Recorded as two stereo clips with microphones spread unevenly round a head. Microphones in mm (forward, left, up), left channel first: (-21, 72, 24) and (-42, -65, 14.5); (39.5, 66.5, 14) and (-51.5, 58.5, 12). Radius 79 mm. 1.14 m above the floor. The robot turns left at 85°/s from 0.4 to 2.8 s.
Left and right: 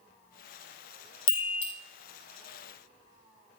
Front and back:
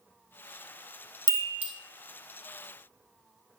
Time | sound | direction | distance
1.3 | a chime | 140° left | 1.6 m